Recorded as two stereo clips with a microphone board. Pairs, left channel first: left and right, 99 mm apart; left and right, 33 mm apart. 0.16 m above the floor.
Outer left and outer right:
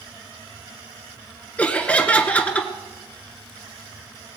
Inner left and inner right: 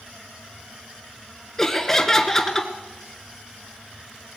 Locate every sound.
1.6 s laughter: 15° left (ahead or behind), 1.8 m